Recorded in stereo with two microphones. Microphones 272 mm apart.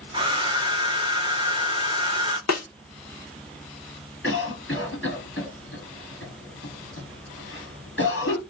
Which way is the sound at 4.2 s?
45° left (ahead or behind).